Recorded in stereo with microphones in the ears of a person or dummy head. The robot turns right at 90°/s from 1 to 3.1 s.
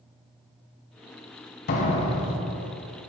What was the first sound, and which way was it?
A door slam, 125° left.